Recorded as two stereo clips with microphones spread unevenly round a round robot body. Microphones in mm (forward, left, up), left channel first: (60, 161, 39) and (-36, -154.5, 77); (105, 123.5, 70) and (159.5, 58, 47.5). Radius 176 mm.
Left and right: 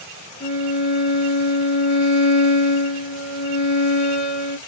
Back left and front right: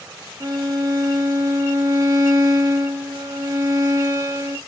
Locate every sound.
0.4 s a violin: 5° left, 0.6 m